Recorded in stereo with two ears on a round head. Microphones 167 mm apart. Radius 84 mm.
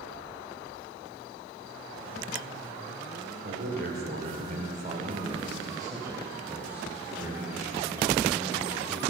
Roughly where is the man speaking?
Right.